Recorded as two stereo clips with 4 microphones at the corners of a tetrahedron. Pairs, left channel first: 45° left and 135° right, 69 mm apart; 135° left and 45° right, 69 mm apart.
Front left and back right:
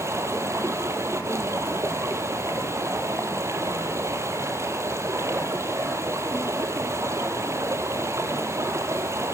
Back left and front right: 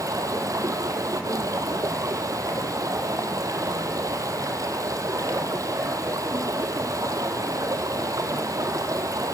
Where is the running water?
85° right, 2 m.